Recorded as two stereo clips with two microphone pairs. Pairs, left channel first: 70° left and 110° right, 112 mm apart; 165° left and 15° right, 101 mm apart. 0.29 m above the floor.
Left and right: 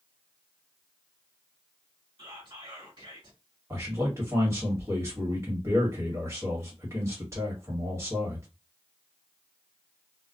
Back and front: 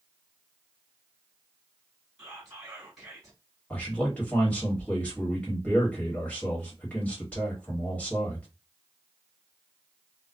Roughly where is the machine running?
No machine running in this recording.